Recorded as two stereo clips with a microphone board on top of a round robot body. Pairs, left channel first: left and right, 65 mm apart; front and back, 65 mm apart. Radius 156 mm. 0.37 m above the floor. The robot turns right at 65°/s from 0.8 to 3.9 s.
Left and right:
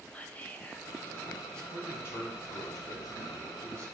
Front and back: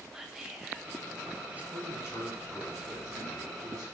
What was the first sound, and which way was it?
Whispering, 105° left.